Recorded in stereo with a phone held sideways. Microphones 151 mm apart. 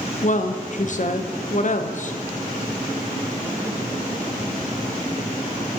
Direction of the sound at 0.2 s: 55° left (ahead or behind).